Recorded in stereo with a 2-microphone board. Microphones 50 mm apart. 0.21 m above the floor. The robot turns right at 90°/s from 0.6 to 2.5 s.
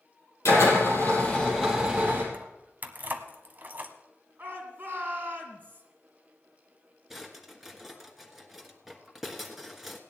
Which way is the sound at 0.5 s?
80° left.